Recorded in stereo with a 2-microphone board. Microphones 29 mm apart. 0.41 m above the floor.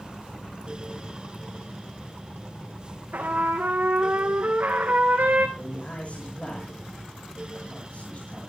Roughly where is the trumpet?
Right.